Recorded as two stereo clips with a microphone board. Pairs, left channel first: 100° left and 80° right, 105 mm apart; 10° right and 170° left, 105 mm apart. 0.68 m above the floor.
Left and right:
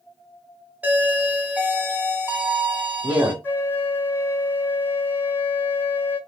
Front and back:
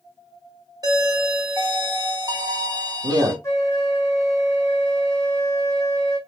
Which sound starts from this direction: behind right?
A doorbell, at 0.8 s.